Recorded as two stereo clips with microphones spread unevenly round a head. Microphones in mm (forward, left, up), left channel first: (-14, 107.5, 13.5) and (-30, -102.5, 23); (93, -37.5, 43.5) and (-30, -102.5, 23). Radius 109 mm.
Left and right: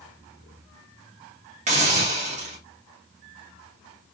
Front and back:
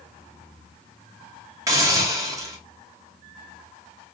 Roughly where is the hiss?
Right.